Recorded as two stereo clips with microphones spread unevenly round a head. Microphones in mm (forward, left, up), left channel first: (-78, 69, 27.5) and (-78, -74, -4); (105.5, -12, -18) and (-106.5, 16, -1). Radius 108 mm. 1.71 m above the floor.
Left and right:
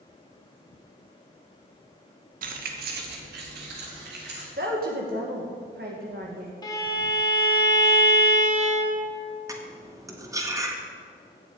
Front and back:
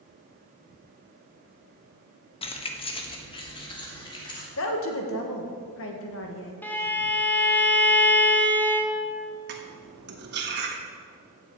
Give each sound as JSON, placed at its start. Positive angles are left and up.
{"t": 2.4, "sound": "keys jangling", "azimuth_deg": -65, "distance_m": 1.0}
{"t": 4.6, "sound": "a woman speaking", "azimuth_deg": -40, "distance_m": 1.8}
{"t": 6.6, "sound": "a violin", "azimuth_deg": 75, "distance_m": 1.3}
{"t": 9.5, "sound": "cutlery clinking", "azimuth_deg": -160, "distance_m": 1.5}